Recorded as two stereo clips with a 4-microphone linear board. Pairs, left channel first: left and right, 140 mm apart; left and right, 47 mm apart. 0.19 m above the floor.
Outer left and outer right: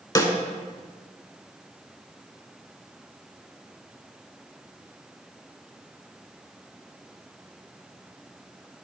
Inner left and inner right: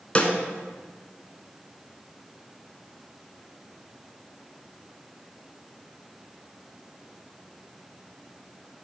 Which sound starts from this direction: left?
A snare drum, at 0.1 s.